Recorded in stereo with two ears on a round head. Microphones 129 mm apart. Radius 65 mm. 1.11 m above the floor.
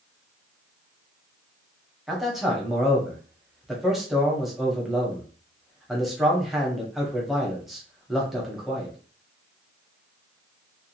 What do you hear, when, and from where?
2.1 s a man speaking: centre (ahead or behind), 1.0 m